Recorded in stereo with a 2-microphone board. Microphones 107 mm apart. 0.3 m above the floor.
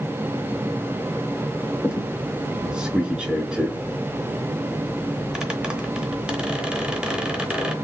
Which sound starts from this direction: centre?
A squeak, at 1.8 s.